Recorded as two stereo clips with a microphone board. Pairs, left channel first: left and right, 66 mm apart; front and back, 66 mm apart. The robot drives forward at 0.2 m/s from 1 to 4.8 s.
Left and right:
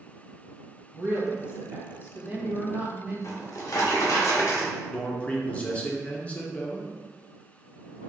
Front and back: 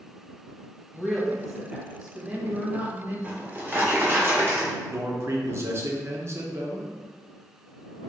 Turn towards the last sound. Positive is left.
turn(degrees=150)